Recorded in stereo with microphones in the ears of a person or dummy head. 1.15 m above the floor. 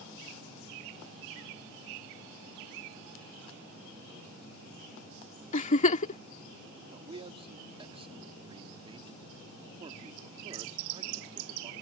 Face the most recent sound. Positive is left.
turn(degrees=-30)  # may be behind; listen again after turning